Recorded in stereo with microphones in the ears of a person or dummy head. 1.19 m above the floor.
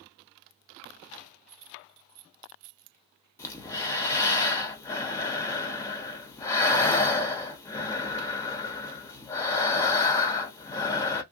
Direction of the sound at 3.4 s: 20° left (ahead or behind).